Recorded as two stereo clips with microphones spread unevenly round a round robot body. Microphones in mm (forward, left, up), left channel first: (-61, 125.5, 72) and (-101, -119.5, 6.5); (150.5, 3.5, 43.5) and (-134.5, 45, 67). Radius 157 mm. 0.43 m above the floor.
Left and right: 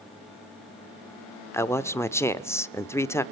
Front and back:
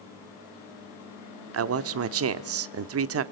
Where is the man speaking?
175° left, 1.0 m.